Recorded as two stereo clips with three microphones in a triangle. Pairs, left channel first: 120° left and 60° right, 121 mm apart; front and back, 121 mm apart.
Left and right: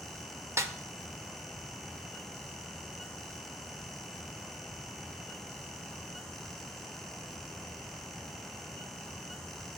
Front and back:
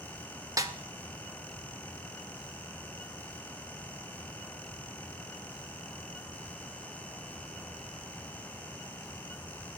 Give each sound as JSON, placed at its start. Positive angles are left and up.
{"t": 0.6, "sound": "a snare drum", "azimuth_deg": -120, "distance_m": 0.5}